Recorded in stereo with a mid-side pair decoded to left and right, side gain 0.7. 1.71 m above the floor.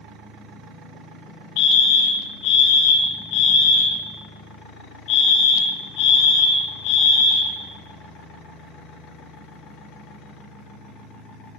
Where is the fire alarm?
70° left, 3 m.